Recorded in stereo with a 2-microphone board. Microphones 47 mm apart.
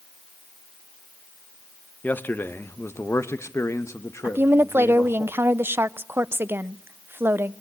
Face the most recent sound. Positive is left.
turn(degrees=-55)  # may be behind; listen again after turning